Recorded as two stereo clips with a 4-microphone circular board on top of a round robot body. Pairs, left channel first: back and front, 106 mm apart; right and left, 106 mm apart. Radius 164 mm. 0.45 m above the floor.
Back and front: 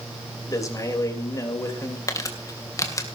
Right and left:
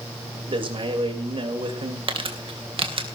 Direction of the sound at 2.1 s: 120° left.